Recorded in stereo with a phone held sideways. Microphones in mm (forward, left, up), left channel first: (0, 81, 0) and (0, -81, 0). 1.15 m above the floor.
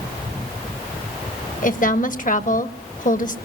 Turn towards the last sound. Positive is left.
turn(degrees=55)  # may be behind; listen again after turning